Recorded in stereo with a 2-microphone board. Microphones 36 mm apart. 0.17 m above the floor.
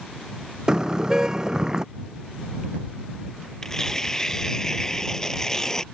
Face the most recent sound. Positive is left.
turn(degrees=15)  # may be behind; listen again after turning